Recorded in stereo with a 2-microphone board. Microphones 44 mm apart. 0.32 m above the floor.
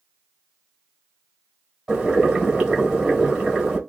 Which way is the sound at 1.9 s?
15° right (ahead or behind).